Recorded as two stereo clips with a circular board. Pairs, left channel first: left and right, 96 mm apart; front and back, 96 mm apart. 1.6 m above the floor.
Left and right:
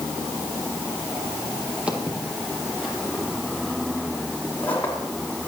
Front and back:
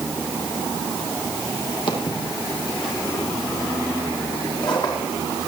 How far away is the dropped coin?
I don't hear a dropped coin.